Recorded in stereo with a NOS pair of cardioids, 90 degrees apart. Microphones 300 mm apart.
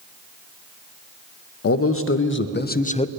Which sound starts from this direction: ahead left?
A man speaking, at 1.6 s.